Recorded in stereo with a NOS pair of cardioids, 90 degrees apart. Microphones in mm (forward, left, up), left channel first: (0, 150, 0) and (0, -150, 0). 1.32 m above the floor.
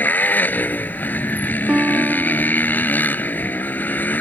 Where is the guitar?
5° right.